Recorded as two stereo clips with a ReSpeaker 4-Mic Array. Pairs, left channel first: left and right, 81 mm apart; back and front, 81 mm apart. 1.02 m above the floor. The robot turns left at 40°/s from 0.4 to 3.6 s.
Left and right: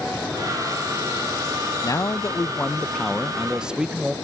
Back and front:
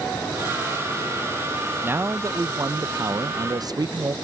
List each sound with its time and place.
1.8 s a man speaking: 60° left; by 4.1 s 10° right